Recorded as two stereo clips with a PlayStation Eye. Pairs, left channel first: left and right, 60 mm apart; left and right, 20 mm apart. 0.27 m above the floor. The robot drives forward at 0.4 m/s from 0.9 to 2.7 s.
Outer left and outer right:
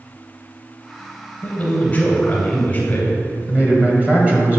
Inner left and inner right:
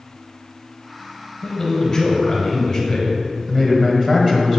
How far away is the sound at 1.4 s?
About 1.6 m.